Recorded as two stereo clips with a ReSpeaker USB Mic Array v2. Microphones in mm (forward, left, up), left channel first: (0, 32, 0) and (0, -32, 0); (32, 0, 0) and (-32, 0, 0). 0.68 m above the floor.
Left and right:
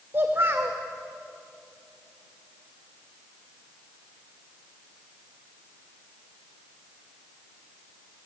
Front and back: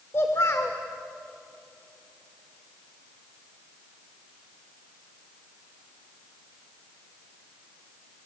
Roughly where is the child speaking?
Ahead right.